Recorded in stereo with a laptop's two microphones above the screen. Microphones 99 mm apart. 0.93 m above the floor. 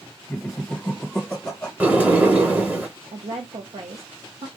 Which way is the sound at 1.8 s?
15° right (ahead or behind).